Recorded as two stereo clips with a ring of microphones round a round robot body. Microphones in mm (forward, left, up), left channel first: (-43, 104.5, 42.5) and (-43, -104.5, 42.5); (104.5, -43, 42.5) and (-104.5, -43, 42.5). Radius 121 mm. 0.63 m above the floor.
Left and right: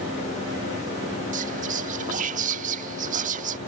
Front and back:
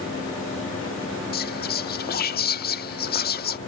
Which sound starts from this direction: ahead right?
Whispering, at 1.3 s.